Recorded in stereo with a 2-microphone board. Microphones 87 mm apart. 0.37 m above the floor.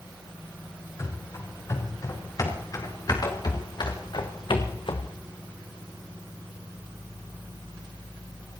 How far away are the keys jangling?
I don't hear keys jangling.